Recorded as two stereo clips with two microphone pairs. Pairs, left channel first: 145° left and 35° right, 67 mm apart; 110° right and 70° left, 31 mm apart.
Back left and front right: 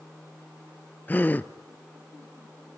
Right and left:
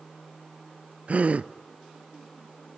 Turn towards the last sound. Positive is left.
turn(degrees=85)